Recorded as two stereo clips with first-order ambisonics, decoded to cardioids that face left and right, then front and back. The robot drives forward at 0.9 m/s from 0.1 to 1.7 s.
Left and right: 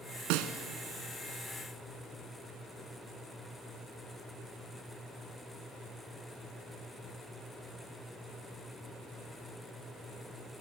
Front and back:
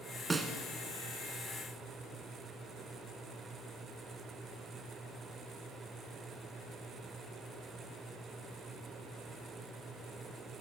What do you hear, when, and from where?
0.3 s a snare drum: 100° right, 1.5 m; by 0.5 s 110° right, 1.6 m